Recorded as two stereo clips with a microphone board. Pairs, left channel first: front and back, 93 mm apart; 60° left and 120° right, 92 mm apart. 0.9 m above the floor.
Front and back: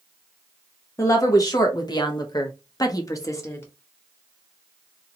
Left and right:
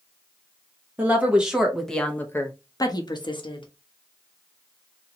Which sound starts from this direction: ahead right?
A woman speaking, at 1.0 s.